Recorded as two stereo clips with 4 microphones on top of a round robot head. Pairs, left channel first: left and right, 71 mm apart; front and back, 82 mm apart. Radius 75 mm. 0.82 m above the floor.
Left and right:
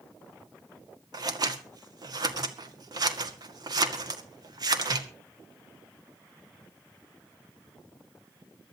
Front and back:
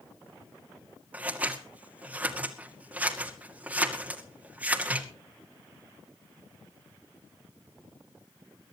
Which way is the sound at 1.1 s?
105° right.